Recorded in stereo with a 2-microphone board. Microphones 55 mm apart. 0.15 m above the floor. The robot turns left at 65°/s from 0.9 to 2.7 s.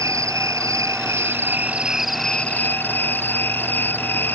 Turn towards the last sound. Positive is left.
turn(degrees=140)